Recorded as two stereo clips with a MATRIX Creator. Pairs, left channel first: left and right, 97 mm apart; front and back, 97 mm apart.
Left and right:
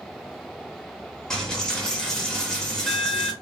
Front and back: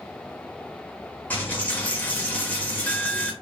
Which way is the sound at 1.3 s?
25° left.